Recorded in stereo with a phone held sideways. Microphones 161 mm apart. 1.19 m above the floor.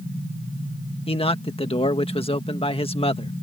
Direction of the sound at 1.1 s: 35° left (ahead or behind).